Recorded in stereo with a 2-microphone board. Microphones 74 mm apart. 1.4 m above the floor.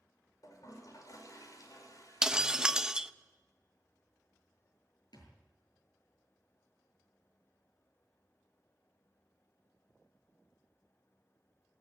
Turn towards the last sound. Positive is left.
turn(degrees=75)  # may be behind; listen again after turning